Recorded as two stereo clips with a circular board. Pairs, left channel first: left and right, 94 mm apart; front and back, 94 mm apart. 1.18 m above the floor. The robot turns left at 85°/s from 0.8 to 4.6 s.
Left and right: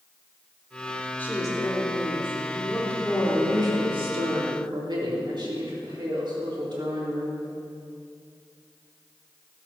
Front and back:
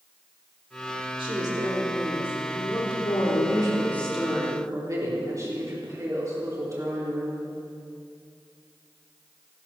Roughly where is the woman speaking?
Behind.